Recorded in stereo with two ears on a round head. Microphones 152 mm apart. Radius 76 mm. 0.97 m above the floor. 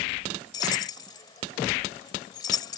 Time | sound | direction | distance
0.5 | keys jangling | 25° left (ahead or behind) | ?